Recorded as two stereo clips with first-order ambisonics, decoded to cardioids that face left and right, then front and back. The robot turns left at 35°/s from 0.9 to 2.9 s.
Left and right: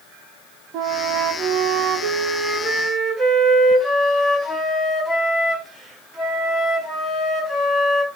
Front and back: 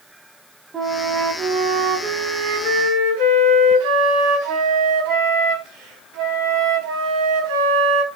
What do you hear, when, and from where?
0.7 s a flute: 115° right, 4.5 m; by 8.1 s 175° left, 4.5 m